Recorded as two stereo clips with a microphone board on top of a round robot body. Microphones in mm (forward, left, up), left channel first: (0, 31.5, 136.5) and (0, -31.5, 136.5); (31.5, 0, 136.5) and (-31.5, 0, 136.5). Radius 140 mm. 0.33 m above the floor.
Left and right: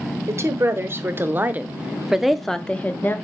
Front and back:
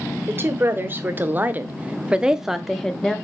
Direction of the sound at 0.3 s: 130° right.